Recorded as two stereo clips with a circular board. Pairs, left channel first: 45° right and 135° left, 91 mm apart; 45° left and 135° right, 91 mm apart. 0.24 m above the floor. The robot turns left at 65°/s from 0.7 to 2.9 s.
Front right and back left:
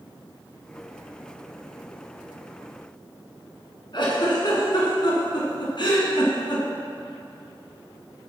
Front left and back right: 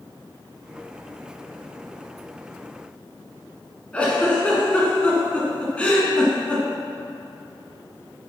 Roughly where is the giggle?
Ahead right.